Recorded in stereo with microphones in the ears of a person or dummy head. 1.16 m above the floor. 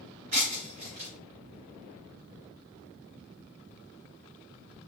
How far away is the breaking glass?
About 3 m.